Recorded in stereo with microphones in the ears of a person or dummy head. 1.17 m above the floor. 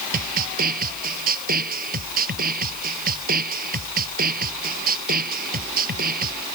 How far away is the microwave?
I don't hear a microwave.